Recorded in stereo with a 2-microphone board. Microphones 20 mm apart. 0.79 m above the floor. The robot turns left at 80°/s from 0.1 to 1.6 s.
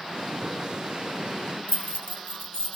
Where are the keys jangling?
70° left (ahead or behind), 1.5 m.